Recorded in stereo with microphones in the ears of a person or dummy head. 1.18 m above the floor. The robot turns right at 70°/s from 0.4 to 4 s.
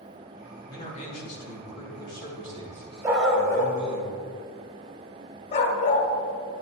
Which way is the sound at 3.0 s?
15° right (ahead or behind).